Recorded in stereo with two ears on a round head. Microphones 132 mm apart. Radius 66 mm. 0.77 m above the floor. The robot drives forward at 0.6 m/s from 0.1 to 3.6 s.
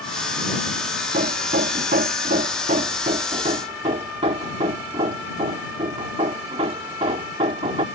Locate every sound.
1.1 s hammering: 60° right (ahead or behind); by 7.8 s 40° right (ahead or behind)